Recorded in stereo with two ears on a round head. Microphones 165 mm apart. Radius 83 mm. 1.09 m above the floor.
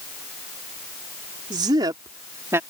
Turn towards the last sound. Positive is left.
turn(degrees=-15)  # may be behind; listen again after turning